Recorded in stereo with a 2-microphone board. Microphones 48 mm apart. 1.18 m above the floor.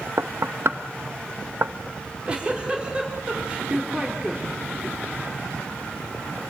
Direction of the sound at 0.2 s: 60° right (ahead or behind).